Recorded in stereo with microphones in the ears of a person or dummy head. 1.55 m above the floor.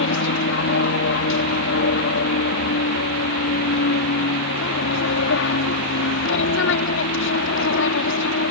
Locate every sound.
0.0 s an aircraft: 65° left (ahead or behind)